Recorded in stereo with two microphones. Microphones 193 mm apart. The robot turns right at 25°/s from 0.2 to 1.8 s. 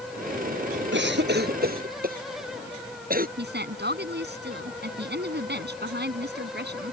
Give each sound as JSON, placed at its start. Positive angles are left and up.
{"t": 0.9, "sound": "a cough", "side_deg": -70}
{"t": 3.4, "sound": "a woman speaking", "side_deg": -60}